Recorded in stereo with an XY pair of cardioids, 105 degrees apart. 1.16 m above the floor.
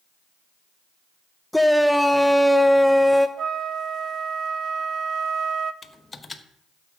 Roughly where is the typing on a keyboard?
Ahead left.